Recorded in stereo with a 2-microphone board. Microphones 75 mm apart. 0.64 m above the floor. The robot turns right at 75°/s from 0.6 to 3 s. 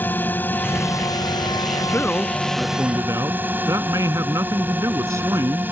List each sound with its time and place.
0.0 s a drone: 30° left; by 5.7 s 150° right
1.9 s a man speaking: 145° left; by 5.7 s 130° right